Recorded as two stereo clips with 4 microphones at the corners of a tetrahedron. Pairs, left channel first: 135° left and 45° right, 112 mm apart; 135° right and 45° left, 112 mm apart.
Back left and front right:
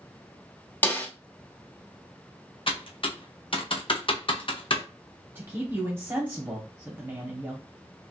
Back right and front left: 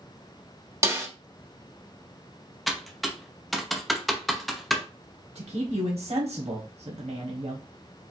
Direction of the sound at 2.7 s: 135° left.